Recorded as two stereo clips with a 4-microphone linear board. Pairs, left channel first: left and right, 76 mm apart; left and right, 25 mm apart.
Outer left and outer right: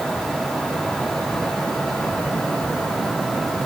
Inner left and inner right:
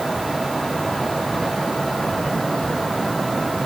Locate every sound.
Only background noise.